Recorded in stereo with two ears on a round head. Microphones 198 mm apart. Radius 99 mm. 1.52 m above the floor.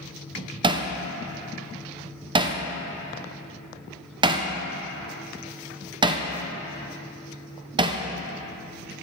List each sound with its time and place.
0.6 s hammering: 20° right (ahead or behind), 0.6 m